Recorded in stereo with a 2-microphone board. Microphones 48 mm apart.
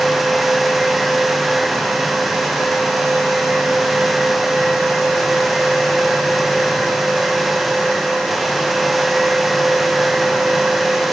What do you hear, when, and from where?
Only background noise.